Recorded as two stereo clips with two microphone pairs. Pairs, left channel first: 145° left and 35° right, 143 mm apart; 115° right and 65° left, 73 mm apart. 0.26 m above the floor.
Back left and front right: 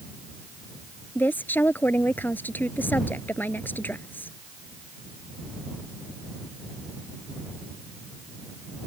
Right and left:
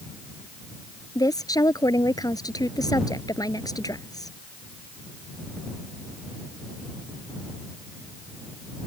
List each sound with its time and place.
1.1 s a woman speaking: 140° right